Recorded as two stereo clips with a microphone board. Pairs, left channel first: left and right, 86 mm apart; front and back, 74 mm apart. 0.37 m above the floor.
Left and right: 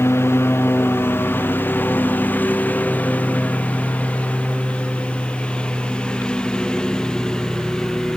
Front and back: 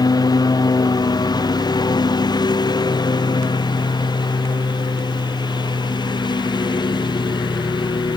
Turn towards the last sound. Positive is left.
turn(degrees=10)